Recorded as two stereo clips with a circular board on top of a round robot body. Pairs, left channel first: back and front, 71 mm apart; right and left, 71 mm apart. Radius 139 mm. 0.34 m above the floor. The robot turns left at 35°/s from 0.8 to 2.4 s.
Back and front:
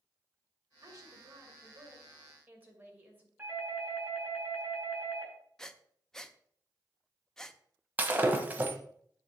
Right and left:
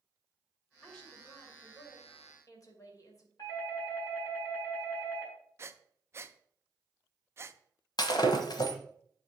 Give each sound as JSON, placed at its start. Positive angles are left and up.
{"t": 0.8, "sound": "a woman speaking", "azimuth_deg": -5, "distance_m": 2.5}
{"t": 3.4, "sound": "a doorbell", "azimuth_deg": -65, "distance_m": 4.5}
{"t": 5.6, "sound": "breathing", "azimuth_deg": 100, "distance_m": 0.7}
{"t": 8.0, "sound": "breaking glass", "azimuth_deg": -65, "distance_m": 1.0}